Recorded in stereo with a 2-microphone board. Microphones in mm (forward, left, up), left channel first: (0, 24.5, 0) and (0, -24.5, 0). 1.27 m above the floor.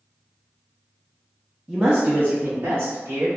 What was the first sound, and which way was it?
A man speaking, 5° right (ahead or behind).